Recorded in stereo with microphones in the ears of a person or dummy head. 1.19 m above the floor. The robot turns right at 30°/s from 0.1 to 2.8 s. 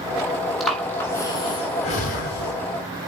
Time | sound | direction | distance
0.6 | breathing | centre (ahead or behind) | 4 m